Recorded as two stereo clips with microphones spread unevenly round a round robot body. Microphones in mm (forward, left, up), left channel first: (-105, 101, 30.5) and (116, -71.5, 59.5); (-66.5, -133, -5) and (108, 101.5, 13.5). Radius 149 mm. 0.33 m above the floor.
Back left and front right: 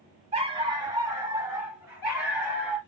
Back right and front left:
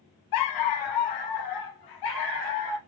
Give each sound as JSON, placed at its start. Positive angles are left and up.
{"t": 0.3, "sound": "a dog barking", "azimuth_deg": -110, "distance_m": 0.6}